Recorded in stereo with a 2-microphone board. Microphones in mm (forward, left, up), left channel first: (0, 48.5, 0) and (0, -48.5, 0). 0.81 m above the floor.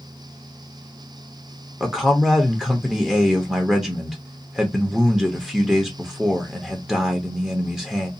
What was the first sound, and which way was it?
A man speaking, 5° right (ahead or behind).